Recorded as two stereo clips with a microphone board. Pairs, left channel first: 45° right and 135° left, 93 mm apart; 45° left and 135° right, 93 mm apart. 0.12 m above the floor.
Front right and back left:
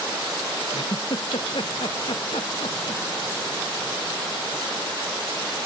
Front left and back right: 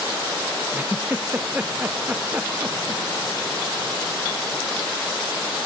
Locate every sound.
0.7 s a giggle: 65° right